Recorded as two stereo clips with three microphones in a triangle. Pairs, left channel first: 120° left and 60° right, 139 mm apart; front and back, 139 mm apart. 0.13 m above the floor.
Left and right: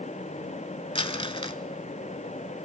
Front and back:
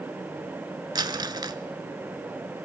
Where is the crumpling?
140° left, 0.6 m.